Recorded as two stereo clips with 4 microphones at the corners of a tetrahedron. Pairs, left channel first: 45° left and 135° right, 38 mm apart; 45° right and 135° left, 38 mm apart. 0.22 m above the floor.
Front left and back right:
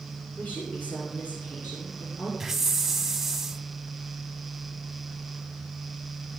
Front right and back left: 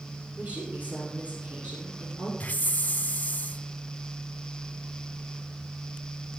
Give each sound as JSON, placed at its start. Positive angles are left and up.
{"t": 0.4, "sound": "a woman speaking", "azimuth_deg": 85, "distance_m": 5.0}
{"t": 2.4, "sound": "a hiss", "azimuth_deg": -55, "distance_m": 0.5}